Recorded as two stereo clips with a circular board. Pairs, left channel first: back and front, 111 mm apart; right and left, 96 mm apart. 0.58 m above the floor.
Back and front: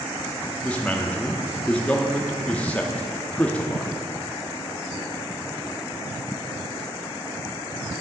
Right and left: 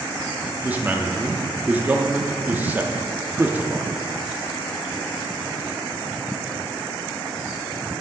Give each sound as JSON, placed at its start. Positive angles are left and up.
{"t": 0.6, "sound": "a man speaking", "azimuth_deg": 120, "distance_m": 0.6}